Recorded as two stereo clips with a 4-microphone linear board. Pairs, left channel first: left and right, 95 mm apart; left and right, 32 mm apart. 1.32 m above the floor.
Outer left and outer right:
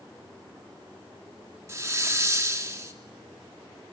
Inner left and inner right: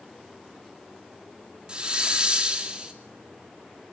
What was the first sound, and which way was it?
A hiss, 30° right (ahead or behind).